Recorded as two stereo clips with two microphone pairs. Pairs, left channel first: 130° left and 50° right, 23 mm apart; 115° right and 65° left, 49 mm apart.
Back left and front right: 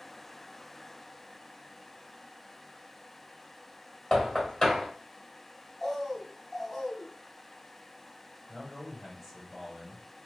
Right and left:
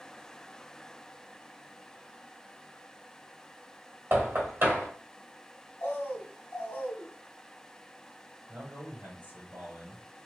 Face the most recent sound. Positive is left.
turn(degrees=40)